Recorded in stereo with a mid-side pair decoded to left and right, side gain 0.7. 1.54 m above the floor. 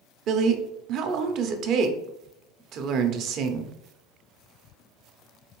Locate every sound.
0.3 s a woman speaking: 55° right, 0.7 m